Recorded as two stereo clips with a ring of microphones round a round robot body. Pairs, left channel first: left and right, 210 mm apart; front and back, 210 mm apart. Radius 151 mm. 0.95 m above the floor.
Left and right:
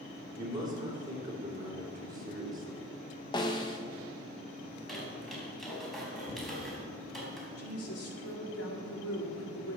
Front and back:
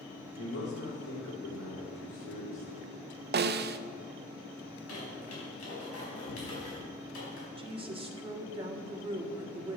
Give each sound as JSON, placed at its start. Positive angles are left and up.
{"t": 0.3, "sound": "a man speaking", "azimuth_deg": -20, "distance_m": 3.0}
{"t": 3.3, "sound": "a snare drum", "azimuth_deg": 160, "distance_m": 0.5}
{"t": 4.7, "sound": "a squeak", "azimuth_deg": 0, "distance_m": 4.5}
{"t": 7.6, "sound": "a woman speaking", "azimuth_deg": 115, "distance_m": 1.8}